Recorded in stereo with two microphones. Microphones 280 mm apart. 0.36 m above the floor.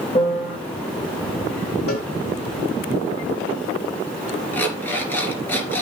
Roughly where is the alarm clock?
Centre.